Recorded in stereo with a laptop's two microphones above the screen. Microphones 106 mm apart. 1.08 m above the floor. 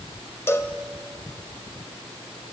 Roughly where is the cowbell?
Left.